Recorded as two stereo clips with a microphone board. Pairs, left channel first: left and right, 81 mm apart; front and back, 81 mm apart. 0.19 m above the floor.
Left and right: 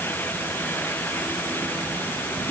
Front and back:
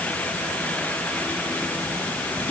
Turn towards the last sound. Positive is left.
No sound to turn to.